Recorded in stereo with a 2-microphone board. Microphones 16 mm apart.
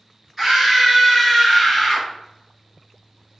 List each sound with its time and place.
0.4 s a scream: 25° right (ahead or behind), 1.9 m; by 2.1 s 20° left (ahead or behind), 1.4 m